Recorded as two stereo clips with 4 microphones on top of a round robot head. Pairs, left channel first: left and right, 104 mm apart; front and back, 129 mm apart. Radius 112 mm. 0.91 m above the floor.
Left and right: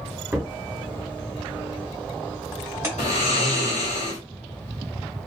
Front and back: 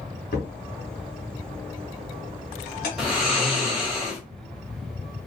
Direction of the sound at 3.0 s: 95° left.